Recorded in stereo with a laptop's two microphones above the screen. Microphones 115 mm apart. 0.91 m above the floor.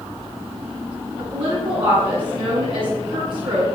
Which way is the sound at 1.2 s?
45° right (ahead or behind).